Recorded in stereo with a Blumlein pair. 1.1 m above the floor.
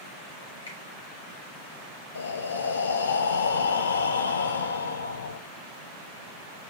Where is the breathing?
70° left, 0.7 m.